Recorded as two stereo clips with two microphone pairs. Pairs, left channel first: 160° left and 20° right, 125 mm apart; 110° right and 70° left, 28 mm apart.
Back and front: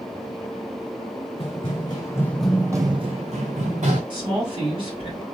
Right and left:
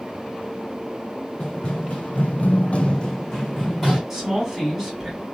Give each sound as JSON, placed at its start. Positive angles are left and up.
{"t": 1.4, "sound": "running footsteps", "azimuth_deg": -160, "distance_m": 1.1}
{"t": 4.1, "sound": "a woman speaking", "azimuth_deg": 0, "distance_m": 1.9}